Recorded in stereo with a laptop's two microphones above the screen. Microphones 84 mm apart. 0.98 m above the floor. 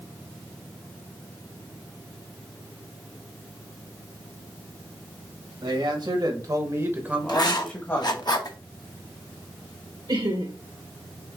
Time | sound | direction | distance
5.6 | a man speaking | 65° right (ahead or behind) | 1.8 m
7.3 | writing | 50° left (ahead or behind) | 0.7 m
10.1 | laughter | 65° right (ahead or behind) | 1.2 m